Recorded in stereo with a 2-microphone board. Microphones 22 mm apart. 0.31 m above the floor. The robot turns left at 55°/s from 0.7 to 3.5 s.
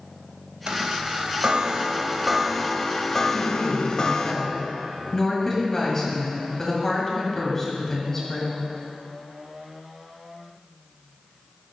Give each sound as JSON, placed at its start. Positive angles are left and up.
{"t": 0.7, "sound": "a chime", "azimuth_deg": -80, "distance_m": 0.7}
{"t": 3.3, "sound": "a woman speaking", "side_deg": 10, "distance_m": 2.0}